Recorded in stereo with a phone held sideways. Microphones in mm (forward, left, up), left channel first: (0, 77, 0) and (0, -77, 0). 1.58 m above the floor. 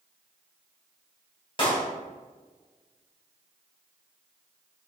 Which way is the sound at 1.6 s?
35° left (ahead or behind).